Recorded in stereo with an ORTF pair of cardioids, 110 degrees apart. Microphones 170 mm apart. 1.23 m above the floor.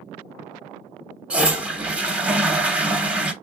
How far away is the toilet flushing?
About 0.9 m.